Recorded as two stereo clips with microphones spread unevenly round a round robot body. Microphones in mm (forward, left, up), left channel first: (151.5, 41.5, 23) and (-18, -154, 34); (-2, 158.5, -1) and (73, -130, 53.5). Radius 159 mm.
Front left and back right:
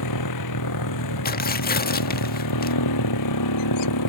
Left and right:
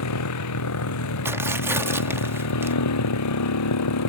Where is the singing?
No singing in this recording.